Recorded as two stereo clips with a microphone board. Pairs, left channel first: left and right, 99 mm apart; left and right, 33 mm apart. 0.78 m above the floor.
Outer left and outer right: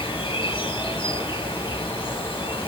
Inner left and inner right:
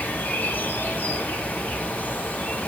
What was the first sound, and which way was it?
An insect, 60° left (ahead or behind).